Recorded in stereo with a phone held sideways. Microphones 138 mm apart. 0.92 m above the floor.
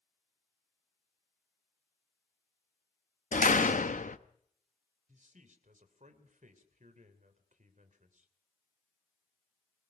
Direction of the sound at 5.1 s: 65° right (ahead or behind).